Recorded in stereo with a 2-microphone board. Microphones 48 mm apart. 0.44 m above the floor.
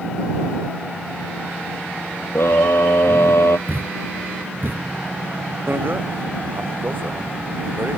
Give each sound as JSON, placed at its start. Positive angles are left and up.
{"t": 2.4, "sound": "a scream", "side_deg": 70}
{"t": 3.7, "sound": "a thud", "side_deg": -55}
{"t": 5.7, "sound": "a bicycle bell", "side_deg": -50}